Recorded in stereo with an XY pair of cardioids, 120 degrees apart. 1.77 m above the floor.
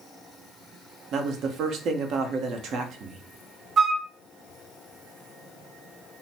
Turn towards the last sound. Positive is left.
turn(degrees=-50)